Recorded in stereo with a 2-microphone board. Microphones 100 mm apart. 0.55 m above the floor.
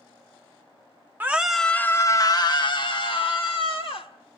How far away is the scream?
About 0.7 m.